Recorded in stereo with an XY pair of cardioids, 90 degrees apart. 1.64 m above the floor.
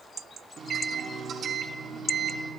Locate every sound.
0.6 s a microwave: 60° right, 2.5 m